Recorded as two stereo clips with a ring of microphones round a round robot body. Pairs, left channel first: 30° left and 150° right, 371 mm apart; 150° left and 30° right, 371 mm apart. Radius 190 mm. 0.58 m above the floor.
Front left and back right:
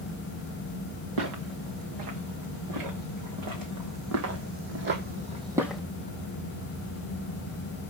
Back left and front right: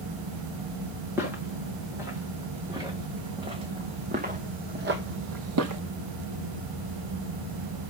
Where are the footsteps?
115° right, 3.5 m; by 5.8 s 55° right, 0.8 m.